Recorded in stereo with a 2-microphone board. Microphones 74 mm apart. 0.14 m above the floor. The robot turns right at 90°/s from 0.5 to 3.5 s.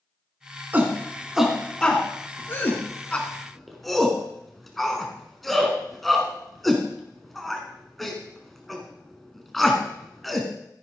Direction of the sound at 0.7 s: 25° right (ahead or behind).